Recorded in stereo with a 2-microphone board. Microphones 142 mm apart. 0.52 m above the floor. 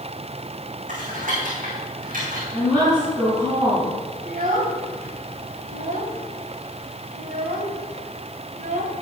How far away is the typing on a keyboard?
About 4.5 m.